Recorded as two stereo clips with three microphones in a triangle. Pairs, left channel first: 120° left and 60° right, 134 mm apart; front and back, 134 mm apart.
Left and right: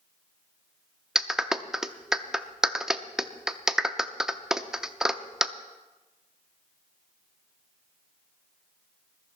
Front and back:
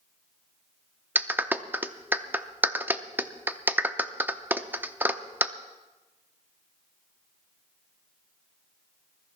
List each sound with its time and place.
1.1 s a clap: 135° right, 0.6 m